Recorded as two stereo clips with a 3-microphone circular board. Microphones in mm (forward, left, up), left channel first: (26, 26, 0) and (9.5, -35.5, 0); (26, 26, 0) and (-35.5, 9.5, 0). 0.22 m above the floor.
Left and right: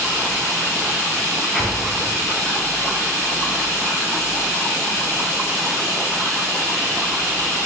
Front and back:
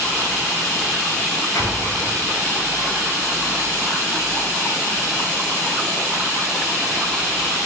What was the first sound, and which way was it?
An explosion, 10° right.